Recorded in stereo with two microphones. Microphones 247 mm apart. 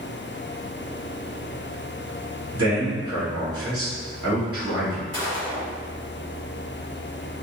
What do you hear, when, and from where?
2.5 s a man speaking: 65° right (ahead or behind), 1.8 m
5.1 s a gunshot: 75° right (ahead or behind), 1.9 m